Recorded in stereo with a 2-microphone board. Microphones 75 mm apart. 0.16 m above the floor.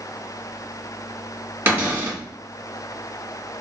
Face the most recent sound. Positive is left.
turn(degrees=-25)  # may be behind; listen again after turning